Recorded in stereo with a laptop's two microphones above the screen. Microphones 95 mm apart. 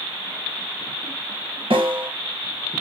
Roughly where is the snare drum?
Right.